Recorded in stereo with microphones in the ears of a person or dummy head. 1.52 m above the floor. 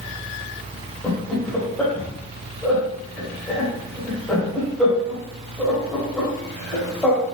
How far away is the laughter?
About 1.1 m.